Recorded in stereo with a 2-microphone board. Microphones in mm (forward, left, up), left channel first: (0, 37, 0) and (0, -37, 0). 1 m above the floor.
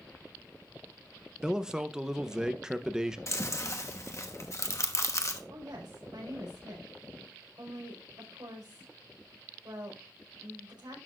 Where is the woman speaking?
85° right, 5 m.